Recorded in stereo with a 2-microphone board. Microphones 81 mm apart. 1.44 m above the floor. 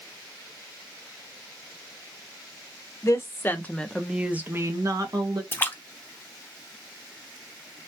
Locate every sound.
3.0 s a woman speaking: 40° left (ahead or behind), 0.9 m; by 5.4 s 60° right (ahead or behind), 0.9 m
5.5 s a splash: 25° left (ahead or behind), 0.7 m